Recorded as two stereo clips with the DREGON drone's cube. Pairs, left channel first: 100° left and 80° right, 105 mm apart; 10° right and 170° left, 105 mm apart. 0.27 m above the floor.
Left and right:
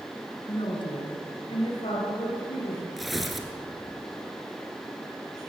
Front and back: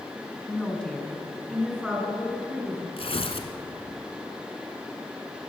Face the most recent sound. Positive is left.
turn(degrees=10)